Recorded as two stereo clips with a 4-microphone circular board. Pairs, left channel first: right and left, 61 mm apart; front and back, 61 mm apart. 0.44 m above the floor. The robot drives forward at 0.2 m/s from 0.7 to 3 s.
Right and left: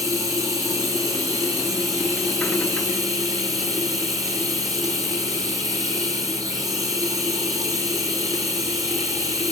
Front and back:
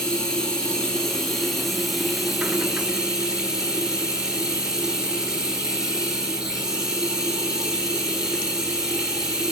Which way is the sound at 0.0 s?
80° left.